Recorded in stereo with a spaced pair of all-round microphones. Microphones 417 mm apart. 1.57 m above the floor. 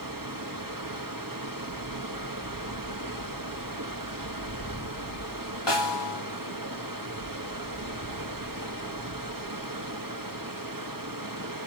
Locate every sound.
0.0 s running water: 50° right (ahead or behind), 1.6 m
5.7 s a snare drum: 80° left, 2 m